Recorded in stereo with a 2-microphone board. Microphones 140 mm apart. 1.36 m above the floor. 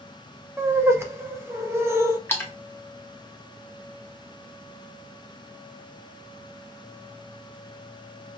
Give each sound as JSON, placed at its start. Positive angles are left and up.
{"t": 0.6, "sound": "laughter", "side_deg": -20, "distance_m": 1.0}
{"t": 2.3, "sound": "a splash", "side_deg": 15, "distance_m": 0.9}